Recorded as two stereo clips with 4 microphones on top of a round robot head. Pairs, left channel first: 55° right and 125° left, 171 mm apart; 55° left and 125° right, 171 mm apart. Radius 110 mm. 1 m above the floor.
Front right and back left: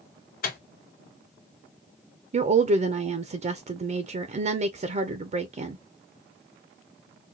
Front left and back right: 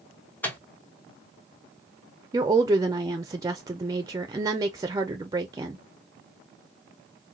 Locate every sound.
0.4 s a microwave: 25° right, 1.1 m
2.3 s a woman speaking: 170° left, 0.5 m